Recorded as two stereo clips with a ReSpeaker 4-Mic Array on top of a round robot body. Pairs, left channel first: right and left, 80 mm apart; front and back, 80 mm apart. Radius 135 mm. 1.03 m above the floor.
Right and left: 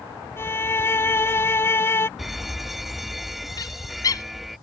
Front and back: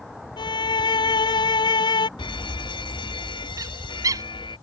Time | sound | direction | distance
0.4 | a violin | 30° right | ?
2.2 | an alarm | 5° left | ?
3.6 | a bird | 135° right | ?